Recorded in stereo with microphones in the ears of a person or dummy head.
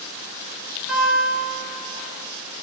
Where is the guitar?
5° right (ahead or behind), 0.6 m.